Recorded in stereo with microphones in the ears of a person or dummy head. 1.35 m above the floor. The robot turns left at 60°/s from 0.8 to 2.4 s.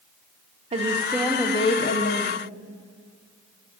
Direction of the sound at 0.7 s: 150° right.